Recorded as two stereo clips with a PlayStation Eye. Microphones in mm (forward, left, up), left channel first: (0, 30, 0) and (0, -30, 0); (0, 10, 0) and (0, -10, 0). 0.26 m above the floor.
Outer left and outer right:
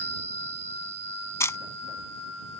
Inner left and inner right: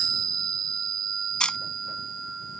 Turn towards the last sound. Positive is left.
turn(degrees=55)  # may be behind; listen again after turning